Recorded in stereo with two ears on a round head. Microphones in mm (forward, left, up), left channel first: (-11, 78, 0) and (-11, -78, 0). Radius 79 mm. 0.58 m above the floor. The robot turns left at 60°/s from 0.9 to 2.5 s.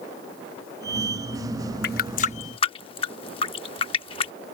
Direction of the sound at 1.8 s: 60° left (ahead or behind).